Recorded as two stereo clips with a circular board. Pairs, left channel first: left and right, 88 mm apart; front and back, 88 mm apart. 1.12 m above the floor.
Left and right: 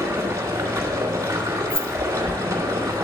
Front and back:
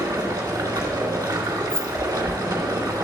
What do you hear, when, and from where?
0.0 s running water: 140° right, 2 m
1.7 s keys jangling: 80° left, 0.8 m